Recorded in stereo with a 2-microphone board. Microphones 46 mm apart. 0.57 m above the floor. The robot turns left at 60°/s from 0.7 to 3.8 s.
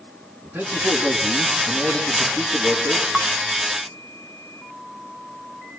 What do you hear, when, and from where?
0.4 s a man speaking: 135° right, 6 m; by 3.0 s 85° left, 6 m
3.1 s dishes clattering: 10° right (ahead or behind), 1.0 m; by 3.3 s 20° right (ahead or behind), 1.0 m